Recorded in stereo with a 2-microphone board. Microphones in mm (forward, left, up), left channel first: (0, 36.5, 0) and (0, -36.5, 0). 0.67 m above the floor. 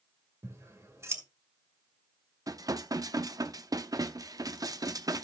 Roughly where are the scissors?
Right.